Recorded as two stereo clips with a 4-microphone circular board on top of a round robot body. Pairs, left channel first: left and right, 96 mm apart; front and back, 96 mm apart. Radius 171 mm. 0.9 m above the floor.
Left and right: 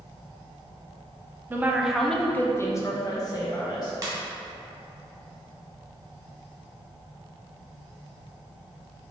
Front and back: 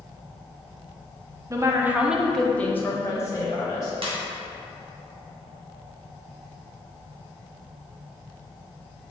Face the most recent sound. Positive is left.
turn(degrees=-145)